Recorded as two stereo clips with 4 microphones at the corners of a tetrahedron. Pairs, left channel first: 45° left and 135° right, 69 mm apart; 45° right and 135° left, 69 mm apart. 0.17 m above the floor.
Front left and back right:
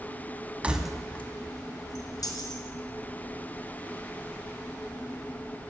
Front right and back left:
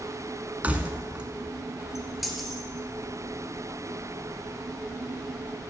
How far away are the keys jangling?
About 1.1 m.